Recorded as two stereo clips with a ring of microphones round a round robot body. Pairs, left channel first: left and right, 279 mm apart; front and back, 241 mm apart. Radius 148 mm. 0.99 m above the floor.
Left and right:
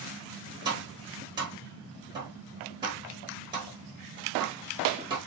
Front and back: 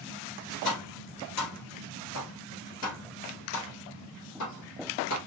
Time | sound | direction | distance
0.7 | tapping | 15° right | 1.5 m